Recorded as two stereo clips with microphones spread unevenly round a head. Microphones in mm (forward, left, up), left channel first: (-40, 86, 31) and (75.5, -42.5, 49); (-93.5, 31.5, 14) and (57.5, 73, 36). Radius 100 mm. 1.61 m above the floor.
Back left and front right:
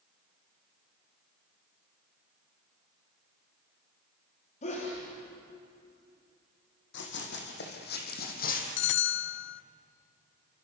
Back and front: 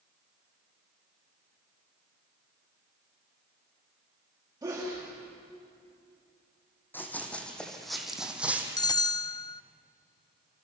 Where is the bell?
130° left, 0.5 m.